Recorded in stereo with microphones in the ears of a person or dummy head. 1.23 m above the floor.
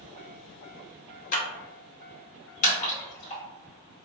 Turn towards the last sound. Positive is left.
turn(degrees=45)  # may be behind; listen again after turning